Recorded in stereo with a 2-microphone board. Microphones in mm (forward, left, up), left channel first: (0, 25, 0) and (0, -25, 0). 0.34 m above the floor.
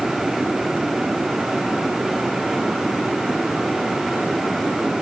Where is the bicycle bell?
No bicycle bell in this recording.